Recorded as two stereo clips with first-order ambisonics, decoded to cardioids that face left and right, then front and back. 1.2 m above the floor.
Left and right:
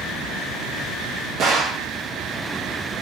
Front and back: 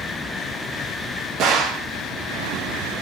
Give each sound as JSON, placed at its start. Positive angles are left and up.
{"t": 1.4, "sound": "a gunshot", "azimuth_deg": -140, "distance_m": 0.9}